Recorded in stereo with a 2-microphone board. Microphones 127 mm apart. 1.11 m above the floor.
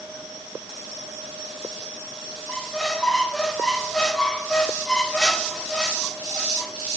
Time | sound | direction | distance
2.5 | a squeak | 5° left (ahead or behind) | 1.1 m